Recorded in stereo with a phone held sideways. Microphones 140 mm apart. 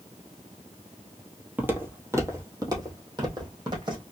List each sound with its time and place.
1.6 s footsteps: 15° right (ahead or behind), 1.3 m; by 4.0 s 35° right (ahead or behind), 2.5 m